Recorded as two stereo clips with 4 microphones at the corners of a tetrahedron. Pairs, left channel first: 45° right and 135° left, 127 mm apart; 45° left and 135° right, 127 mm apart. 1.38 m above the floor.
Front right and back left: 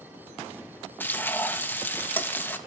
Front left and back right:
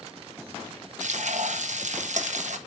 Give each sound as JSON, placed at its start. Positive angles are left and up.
{"t": 1.0, "sound": "frying", "azimuth_deg": -120, "distance_m": 1.3}